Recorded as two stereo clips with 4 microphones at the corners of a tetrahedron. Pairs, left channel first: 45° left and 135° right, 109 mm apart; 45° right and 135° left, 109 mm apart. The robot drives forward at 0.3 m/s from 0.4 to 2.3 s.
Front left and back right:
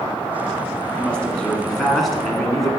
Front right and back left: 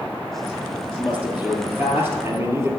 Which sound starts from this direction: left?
A man speaking, at 1.0 s.